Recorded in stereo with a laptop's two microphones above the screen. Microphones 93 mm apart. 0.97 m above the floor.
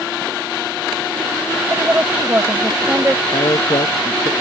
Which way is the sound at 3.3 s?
60° left (ahead or behind).